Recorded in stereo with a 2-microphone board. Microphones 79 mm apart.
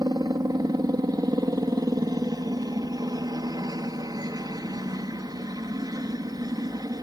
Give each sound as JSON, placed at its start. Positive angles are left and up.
{"t": 0.0, "sound": "a helicopter", "side_deg": -55}